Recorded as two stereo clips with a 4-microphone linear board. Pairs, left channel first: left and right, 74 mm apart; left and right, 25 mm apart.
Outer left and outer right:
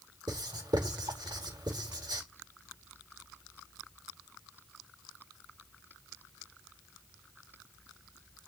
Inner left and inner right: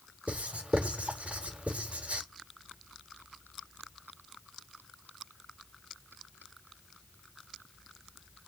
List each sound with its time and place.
0.3 s writing: 80° right, 4.5 m